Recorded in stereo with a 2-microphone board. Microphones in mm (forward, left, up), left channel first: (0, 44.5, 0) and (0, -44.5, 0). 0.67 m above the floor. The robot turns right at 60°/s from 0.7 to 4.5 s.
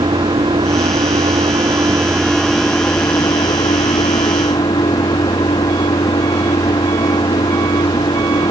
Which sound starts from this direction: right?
An engine running, at 0.0 s.